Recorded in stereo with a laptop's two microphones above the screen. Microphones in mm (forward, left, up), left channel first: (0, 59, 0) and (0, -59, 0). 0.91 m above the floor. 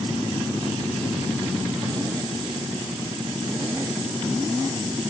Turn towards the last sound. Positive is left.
No sound to turn to.